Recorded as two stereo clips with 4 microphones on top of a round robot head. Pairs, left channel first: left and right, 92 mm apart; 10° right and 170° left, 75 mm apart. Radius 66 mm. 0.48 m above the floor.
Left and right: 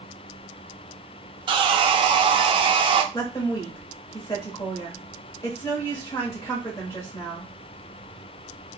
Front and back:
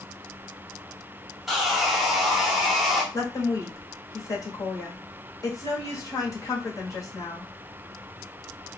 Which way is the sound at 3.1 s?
25° left.